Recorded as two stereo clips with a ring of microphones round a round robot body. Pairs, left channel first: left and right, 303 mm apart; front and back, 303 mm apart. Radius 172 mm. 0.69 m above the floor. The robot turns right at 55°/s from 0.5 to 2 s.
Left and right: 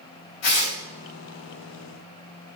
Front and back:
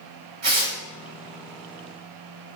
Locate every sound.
0.4 s tearing paper: 120° left, 4 m; by 0.8 s 135° left, 4 m